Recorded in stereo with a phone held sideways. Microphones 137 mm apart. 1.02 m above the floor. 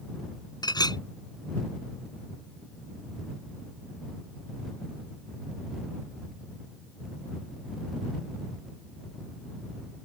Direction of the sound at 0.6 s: 30° left (ahead or behind).